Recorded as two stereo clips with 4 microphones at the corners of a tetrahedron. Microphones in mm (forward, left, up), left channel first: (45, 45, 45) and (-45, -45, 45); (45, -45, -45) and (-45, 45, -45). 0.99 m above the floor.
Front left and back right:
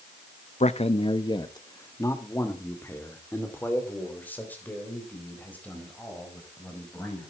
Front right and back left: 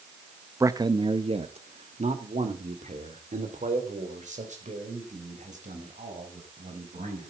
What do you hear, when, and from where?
0.6 s a man speaking: 70° left, 0.7 m; by 7.3 s 125° left, 5.5 m